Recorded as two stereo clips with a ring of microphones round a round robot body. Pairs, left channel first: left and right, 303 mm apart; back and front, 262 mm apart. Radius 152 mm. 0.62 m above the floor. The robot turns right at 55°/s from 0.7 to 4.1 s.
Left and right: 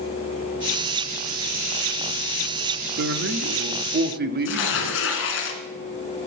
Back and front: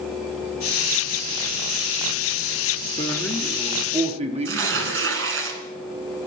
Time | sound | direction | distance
3.0 | a man speaking | 115° right | 1.0 m
4.5 | tearing paper | 40° left | 2 m